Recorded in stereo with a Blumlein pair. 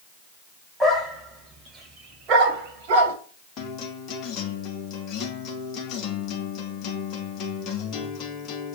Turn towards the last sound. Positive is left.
turn(degrees=30)